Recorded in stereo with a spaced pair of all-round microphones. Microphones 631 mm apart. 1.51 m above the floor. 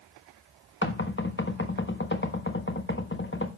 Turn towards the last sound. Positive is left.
turn(degrees=15)  # may be behind; listen again after turning